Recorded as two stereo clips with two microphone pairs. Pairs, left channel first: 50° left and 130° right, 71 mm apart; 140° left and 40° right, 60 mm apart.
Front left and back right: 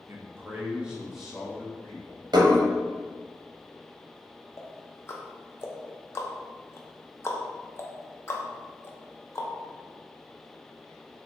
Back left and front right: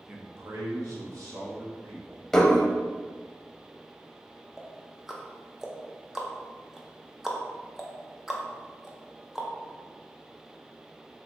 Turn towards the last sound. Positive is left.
turn(degrees=35)